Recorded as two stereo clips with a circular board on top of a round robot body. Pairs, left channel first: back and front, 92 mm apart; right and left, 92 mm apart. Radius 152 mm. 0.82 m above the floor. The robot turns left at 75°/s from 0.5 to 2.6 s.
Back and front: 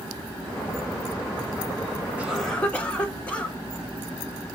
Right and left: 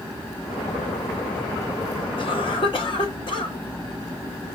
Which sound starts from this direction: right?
A cough, at 2.2 s.